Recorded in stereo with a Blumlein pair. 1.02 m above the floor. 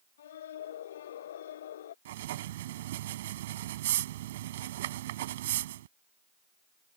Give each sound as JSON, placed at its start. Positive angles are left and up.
{"t": 0.2, "sound": "a scream", "azimuth_deg": 60}
{"t": 2.0, "sound": "writing", "azimuth_deg": -55}